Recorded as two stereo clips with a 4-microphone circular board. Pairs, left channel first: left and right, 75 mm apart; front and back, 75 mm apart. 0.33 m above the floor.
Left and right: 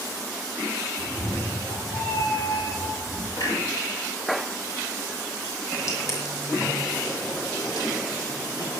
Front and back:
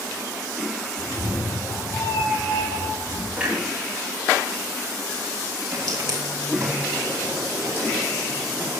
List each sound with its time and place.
1.0 s a cat meowing: 55° left, 7 m; by 3.3 s 30° left, 6 m
3.4 s a clunk: 105° left, 6 m
5.7 s footsteps: 140° left, 6 m; by 8.8 s 115° left, 7.5 m